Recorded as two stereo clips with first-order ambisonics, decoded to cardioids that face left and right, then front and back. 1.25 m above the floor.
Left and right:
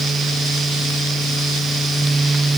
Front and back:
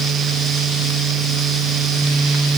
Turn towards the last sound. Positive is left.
No sound to turn to.